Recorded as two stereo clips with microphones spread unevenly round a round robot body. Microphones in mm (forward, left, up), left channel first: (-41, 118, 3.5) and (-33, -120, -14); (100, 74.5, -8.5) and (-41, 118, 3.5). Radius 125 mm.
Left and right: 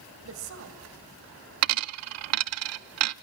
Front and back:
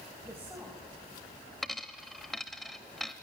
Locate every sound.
0.2 s a woman speaking: 115° right, 3 m
1.6 s a dropped coin: 110° right, 0.5 m